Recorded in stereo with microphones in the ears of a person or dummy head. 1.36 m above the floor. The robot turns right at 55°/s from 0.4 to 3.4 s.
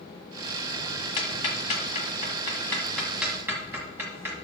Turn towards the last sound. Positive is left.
turn(degrees=-10)  # may be behind; listen again after turning